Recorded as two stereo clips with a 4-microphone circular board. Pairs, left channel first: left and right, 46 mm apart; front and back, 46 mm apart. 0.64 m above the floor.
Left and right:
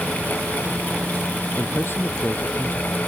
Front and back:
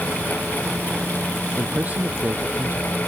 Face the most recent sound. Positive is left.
turn(degrees=125)